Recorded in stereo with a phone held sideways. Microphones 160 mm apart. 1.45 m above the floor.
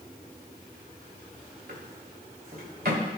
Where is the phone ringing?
No phone ringing in this recording.